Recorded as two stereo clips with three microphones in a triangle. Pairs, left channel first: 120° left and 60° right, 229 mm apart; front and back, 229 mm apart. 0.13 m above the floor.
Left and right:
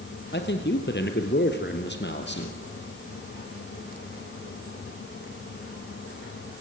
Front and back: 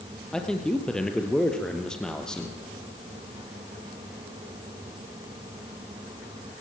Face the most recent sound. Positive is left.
turn(degrees=85)